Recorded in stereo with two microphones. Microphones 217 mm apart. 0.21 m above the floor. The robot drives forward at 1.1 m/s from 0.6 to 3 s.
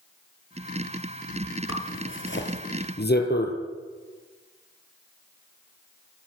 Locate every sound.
1.7 s a zipper: 65° left (ahead or behind), 3 m; by 3.5 s 45° left (ahead or behind), 3.5 m